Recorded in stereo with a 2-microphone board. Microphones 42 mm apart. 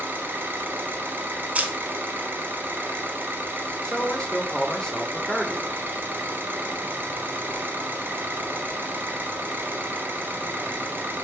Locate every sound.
0.0 s an engine running: 55° right (ahead or behind), 1.0 m
1.6 s a camera shutter: 35° right (ahead or behind), 0.6 m
3.8 s a man speaking: 15° left (ahead or behind), 0.8 m